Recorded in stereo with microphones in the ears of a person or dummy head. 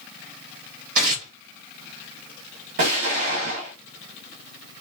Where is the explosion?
55° right (ahead or behind), 1.1 m.